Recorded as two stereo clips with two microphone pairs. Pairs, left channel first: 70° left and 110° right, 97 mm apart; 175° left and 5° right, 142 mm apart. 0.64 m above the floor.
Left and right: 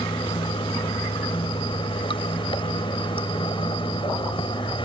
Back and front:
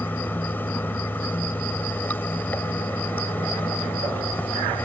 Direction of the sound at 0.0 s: 100° left.